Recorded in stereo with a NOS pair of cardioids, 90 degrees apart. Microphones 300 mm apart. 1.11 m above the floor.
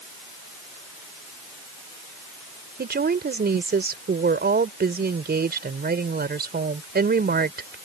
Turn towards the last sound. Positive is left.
turn(degrees=-35)